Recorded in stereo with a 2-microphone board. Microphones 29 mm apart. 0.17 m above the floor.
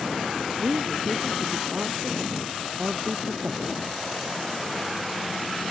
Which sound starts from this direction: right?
A woman speaking, at 0.6 s.